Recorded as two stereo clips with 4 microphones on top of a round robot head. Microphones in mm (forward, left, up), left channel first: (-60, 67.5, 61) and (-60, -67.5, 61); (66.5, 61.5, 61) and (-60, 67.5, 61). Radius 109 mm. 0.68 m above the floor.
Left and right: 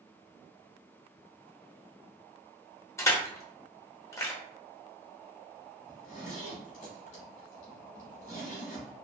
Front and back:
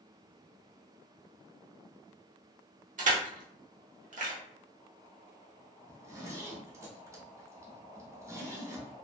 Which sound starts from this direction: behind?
Crushing, at 3.0 s.